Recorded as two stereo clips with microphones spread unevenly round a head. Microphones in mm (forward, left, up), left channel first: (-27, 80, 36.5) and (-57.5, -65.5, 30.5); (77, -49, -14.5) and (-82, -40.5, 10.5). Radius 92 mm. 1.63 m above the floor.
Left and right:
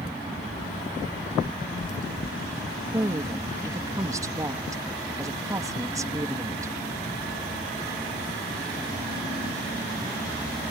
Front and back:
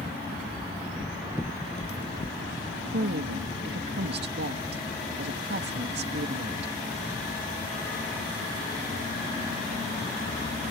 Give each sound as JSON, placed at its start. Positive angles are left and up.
{"t": 0.6, "sound": "footsteps", "azimuth_deg": 45}
{"t": 2.9, "sound": "a woman speaking", "azimuth_deg": -170}